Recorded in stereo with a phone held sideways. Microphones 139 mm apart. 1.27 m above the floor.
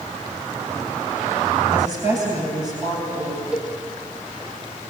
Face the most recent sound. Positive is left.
turn(degrees=-5)  # may be behind; listen again after turning